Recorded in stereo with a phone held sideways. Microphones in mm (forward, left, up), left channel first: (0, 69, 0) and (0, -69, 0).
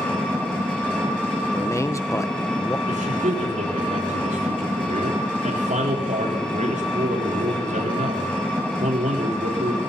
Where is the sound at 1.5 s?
20° left (ahead or behind), 0.8 m.